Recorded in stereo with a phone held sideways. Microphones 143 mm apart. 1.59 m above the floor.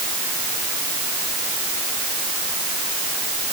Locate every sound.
Only background noise.